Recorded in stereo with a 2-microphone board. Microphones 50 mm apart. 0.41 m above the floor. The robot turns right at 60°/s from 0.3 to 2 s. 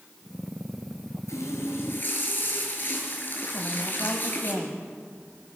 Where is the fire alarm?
No fire alarm in this recording.